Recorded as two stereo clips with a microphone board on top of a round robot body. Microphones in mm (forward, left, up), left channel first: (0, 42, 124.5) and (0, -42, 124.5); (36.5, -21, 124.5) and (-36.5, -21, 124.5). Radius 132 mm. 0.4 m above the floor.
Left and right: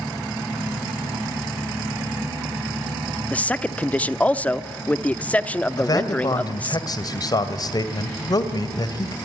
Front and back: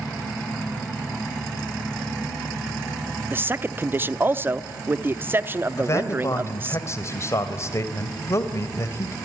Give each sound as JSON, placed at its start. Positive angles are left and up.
{"t": 3.3, "sound": "a man speaking", "azimuth_deg": 150, "distance_m": 0.9}
{"t": 5.8, "sound": "a man speaking", "azimuth_deg": 50, "distance_m": 2.0}